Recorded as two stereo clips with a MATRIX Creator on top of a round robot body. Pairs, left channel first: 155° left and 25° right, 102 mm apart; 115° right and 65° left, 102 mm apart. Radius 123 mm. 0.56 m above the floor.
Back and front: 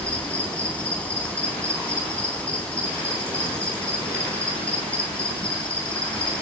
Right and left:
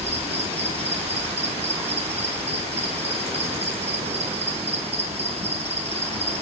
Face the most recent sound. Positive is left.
turn(degrees=80)